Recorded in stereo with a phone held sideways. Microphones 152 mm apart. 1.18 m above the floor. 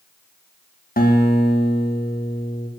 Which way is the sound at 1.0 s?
70° left (ahead or behind).